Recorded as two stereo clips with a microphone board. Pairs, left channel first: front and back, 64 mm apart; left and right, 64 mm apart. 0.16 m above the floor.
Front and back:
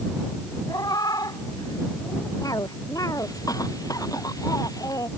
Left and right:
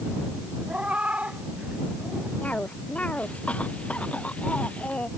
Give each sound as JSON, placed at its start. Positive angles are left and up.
{"t": 0.7, "sound": "a cat meowing", "azimuth_deg": -20}
{"t": 2.4, "sound": "a cough", "azimuth_deg": 20}